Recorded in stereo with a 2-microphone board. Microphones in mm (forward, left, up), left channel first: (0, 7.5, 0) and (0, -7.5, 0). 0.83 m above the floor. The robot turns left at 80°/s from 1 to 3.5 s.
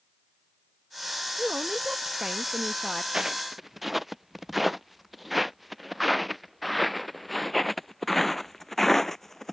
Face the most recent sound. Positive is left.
turn(degrees=15)  # may be behind; listen again after turning